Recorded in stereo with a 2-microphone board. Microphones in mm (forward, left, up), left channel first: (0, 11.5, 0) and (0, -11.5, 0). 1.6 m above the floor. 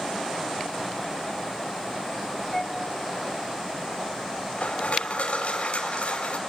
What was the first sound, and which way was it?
A flute, 5° left (ahead or behind).